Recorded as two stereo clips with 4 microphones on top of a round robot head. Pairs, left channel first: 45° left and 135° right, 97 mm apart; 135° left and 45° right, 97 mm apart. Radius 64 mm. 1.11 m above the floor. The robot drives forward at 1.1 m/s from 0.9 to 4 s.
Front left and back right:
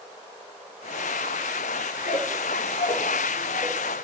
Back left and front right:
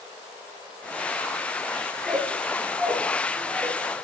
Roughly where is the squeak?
Ahead left.